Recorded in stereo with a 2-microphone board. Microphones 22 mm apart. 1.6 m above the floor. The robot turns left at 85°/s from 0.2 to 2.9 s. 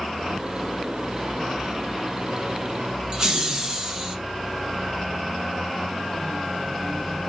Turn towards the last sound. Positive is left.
turn(degrees=-25)  # may be behind; listen again after turning